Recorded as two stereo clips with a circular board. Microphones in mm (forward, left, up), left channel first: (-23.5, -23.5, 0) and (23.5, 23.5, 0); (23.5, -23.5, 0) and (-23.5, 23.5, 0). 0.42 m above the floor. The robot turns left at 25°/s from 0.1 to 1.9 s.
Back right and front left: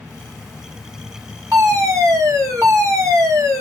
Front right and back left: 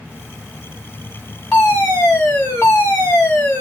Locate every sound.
1.5 s a fire alarm: 25° left, 5 m; by 3.6 s 15° left, 5 m